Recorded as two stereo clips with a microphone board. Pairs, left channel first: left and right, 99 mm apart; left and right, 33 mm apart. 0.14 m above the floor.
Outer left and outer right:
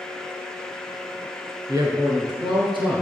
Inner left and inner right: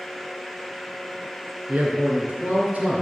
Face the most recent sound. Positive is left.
turn(degrees=-60)  # may be behind; listen again after turning